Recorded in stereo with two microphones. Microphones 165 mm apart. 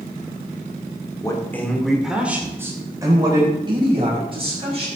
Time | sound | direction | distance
1.2 | a man speaking | 20° left (ahead or behind) | 2 m